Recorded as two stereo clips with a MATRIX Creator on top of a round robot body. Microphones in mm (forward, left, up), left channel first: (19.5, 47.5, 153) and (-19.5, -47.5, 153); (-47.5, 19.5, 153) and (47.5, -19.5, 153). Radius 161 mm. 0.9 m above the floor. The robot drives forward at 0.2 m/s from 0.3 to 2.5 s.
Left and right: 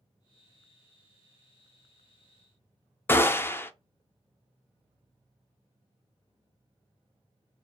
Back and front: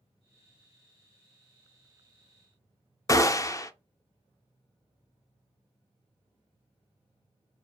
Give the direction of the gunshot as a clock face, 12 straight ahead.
8 o'clock.